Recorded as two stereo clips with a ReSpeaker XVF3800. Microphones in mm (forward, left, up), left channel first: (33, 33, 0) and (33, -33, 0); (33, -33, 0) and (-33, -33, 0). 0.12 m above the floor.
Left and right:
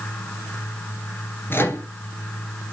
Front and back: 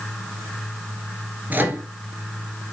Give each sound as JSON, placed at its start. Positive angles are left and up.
{"t": 1.5, "sound": "a microwave", "azimuth_deg": 130, "distance_m": 1.8}